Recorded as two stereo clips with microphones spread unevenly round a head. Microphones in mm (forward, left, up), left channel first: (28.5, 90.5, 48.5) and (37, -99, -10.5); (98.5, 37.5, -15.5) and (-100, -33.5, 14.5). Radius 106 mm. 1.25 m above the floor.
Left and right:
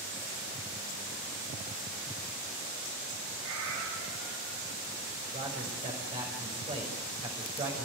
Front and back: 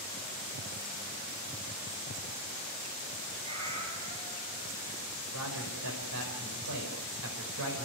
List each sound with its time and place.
3.4 s a cat meowing: 100° right, 7 m
5.3 s a man speaking: 155° right, 5.5 m